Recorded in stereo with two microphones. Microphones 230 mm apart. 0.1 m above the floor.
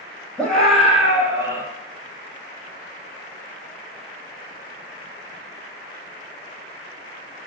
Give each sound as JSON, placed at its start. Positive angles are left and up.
{"t": 0.4, "sound": "a scream", "side_deg": 5, "distance_m": 4.0}